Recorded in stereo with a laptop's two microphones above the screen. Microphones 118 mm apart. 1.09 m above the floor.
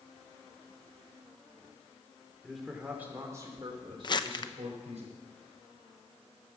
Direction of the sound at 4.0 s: 40° left (ahead or behind).